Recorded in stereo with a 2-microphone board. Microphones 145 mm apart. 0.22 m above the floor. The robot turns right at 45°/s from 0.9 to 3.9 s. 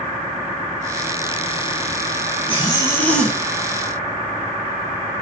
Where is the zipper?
145° left, 1.4 m; by 3.4 s 175° right, 1.4 m.